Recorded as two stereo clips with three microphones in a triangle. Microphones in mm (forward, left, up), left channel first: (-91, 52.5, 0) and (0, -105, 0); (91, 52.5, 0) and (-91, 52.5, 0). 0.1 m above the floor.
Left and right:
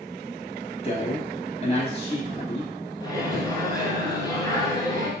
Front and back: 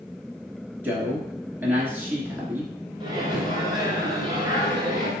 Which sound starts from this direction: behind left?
A microwave, at 3.0 s.